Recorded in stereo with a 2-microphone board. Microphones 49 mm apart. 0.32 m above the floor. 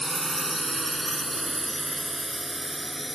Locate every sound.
0.0 s a drone: 5° left (ahead or behind); by 3.2 s centre (ahead or behind)